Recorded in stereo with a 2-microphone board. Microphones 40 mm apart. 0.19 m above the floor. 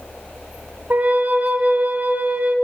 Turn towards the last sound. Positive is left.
turn(degrees=-50)  # may be behind; listen again after turning